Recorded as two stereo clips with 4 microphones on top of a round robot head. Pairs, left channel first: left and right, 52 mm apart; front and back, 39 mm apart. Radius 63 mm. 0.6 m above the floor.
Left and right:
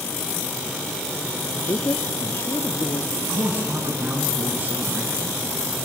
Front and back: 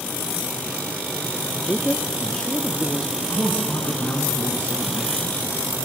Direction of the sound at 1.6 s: 60° left.